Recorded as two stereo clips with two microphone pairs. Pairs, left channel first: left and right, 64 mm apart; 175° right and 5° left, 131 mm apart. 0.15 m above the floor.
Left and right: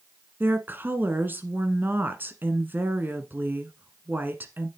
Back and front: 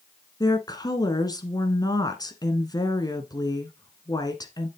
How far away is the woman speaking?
About 1.6 m.